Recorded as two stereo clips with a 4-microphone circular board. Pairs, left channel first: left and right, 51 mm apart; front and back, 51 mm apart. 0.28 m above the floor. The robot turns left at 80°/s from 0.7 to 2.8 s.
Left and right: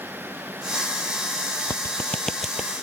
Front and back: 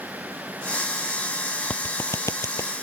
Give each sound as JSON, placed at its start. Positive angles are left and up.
{"t": 1.7, "sound": "a clap", "azimuth_deg": 60}